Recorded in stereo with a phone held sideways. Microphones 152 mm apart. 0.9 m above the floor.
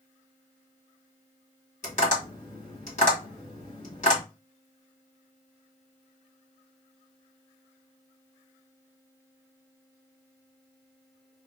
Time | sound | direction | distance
1.8 | tapping | 55° left (ahead or behind) | 1.5 m